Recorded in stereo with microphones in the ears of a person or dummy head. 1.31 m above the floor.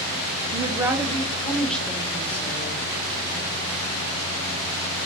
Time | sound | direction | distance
0.5 | a woman speaking | 30° right (ahead or behind) | 0.9 m